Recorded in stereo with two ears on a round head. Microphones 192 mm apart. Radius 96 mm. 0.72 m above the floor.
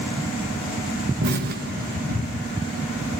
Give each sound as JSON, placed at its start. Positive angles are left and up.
{"t": 1.2, "sound": "an explosion", "side_deg": -45, "distance_m": 0.6}